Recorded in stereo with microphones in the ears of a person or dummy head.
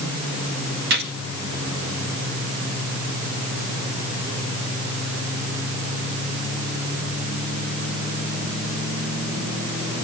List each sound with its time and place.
0.9 s a gunshot: 55° right (ahead or behind), 1.8 m